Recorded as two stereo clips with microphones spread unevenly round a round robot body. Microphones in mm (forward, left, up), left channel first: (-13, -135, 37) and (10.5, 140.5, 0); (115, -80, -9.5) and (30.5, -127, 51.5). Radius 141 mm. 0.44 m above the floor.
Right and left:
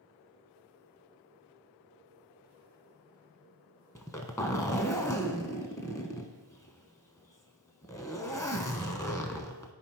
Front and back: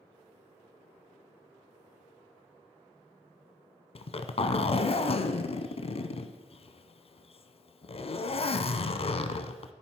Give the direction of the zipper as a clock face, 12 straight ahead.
1 o'clock.